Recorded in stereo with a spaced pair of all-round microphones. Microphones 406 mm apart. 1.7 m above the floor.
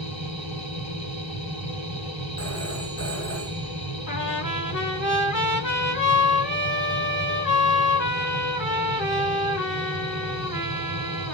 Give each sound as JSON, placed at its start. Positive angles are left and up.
{"t": 0.0, "sound": "a machine running", "side_deg": 40, "distance_m": 1.8}
{"t": 2.4, "sound": "a phone ringing", "side_deg": 40, "distance_m": 2.5}
{"t": 4.1, "sound": "a trumpet", "side_deg": 50, "distance_m": 2.0}